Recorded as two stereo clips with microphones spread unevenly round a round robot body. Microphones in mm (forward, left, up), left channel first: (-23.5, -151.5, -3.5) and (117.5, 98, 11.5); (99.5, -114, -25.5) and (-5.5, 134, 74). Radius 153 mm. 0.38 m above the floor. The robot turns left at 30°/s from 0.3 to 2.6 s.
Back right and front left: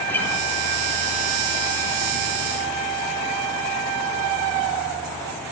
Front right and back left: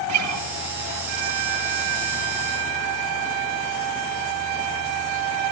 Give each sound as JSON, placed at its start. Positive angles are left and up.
{"t": 0.1, "sound": "a guitar", "azimuth_deg": 155, "distance_m": 4.0}